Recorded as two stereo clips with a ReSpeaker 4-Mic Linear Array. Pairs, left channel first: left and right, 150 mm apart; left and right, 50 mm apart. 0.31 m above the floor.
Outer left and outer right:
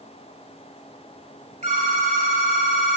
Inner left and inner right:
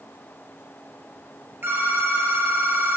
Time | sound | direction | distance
1.6 | a phone ringing | 55° right (ahead or behind) | 3.5 m